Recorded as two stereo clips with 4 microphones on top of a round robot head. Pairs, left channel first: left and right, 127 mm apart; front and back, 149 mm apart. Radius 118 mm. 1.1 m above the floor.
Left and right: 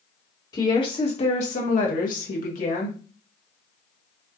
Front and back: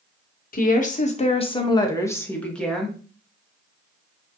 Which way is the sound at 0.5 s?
25° left.